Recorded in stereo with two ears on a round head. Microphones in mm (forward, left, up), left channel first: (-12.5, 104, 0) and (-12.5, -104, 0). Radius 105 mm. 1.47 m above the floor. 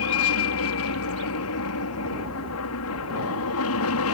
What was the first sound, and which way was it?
An aircraft, 65° left (ahead or behind).